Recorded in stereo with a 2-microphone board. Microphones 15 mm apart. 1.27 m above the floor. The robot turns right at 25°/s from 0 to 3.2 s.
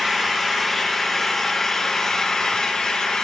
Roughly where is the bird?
No bird in this recording.